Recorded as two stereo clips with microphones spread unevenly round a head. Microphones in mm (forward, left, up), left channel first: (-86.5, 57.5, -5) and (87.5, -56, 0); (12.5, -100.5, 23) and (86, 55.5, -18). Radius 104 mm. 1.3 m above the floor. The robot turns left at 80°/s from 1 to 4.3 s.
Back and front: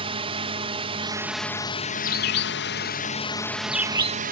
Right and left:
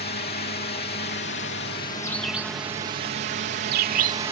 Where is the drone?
95° right; by 4.3 s 5° left.